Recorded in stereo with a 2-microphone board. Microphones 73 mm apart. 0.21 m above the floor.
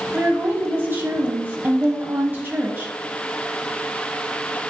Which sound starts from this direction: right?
A woman speaking, at 0.1 s.